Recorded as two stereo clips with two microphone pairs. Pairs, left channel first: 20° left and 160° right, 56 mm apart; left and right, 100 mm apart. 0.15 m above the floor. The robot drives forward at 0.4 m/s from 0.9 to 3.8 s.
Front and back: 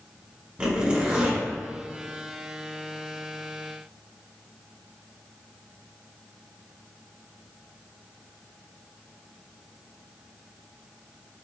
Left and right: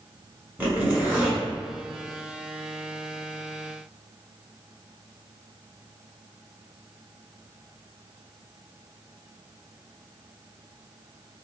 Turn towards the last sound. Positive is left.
turn(degrees=-165)